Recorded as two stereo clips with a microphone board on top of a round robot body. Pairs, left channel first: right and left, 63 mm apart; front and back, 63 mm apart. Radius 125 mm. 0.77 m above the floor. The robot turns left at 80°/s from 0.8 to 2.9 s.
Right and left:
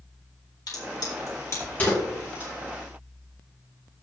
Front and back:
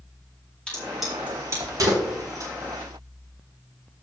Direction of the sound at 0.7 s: 75° right.